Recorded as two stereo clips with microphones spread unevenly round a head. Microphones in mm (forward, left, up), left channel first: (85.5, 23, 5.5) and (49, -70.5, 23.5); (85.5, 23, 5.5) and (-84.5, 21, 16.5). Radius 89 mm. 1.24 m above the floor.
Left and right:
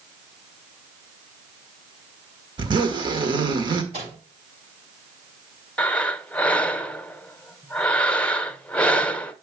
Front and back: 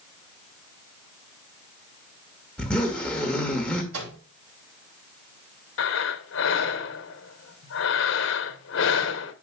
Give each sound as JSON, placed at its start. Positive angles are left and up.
{"t": 2.6, "sound": "a zipper", "azimuth_deg": -85, "distance_m": 1.5}
{"t": 3.9, "sound": "a microwave", "azimuth_deg": -165, "distance_m": 3.5}
{"t": 5.8, "sound": "breathing", "azimuth_deg": -10, "distance_m": 0.8}